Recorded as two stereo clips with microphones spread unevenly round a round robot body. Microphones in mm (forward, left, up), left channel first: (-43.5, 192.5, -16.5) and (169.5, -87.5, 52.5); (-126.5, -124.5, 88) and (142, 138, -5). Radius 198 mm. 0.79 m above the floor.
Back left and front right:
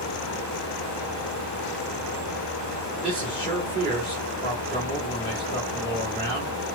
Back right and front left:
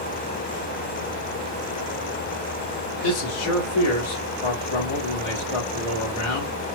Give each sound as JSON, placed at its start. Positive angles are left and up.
{"t": 3.0, "sound": "a man speaking", "azimuth_deg": -135, "distance_m": 1.7}